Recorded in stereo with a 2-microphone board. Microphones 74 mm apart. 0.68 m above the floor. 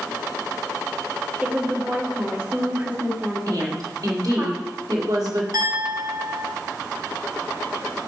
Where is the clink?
65° right (ahead or behind), 4 m.